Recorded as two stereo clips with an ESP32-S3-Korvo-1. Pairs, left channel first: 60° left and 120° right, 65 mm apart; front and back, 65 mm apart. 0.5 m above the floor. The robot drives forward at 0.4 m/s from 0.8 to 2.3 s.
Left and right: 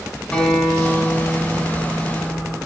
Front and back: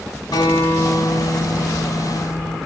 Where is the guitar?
15° right, 2.5 m; by 2.6 s 20° right, 2 m.